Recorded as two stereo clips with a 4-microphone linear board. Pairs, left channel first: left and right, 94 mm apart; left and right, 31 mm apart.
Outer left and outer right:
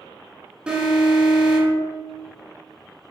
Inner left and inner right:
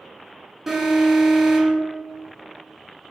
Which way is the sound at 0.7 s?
10° right (ahead or behind).